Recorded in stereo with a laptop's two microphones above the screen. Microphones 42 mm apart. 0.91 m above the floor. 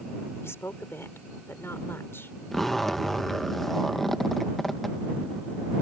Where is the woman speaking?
75° left (ahead or behind); by 2.4 s 60° left (ahead or behind).